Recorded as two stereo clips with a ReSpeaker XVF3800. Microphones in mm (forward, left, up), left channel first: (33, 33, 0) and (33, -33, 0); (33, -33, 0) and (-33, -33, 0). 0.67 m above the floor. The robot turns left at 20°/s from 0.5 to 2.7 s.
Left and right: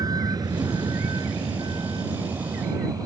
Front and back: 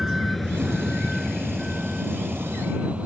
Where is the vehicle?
95° right; by 3.1 s 110° right.